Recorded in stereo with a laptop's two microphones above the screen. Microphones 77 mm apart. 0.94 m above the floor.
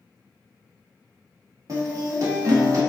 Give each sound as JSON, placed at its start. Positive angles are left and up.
{"t": 1.7, "sound": "a guitar", "side_deg": -45, "distance_m": 1.3}